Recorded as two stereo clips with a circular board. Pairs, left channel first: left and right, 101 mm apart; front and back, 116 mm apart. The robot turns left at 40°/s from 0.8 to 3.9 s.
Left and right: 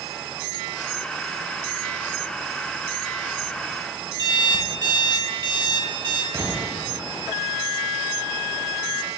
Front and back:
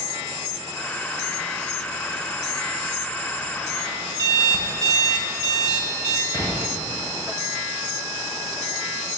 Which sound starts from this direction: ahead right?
An explosion, at 6.3 s.